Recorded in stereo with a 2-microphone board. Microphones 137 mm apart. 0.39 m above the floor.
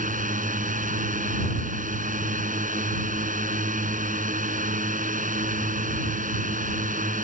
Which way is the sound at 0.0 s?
70° right (ahead or behind).